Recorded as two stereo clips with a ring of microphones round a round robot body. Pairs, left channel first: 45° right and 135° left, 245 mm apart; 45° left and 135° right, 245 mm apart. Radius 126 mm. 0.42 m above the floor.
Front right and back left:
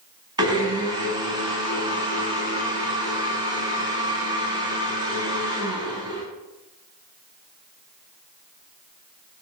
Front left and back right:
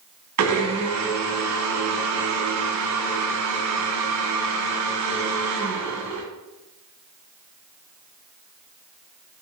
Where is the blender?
150° right, 1.7 m.